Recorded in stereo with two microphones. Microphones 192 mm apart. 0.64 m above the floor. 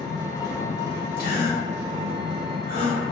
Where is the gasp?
50° left (ahead or behind), 1.6 m.